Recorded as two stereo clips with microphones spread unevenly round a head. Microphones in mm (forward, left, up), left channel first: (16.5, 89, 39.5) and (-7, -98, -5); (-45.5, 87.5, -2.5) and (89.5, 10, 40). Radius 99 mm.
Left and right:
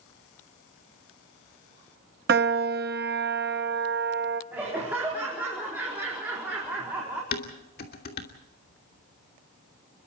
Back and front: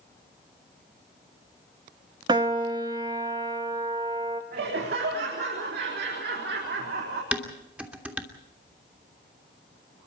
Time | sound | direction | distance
2.3 | a piano | 65° right | 1.1 m
4.5 | laughter | 15° right | 4 m
7.3 | dishes clattering | 45° left | 3 m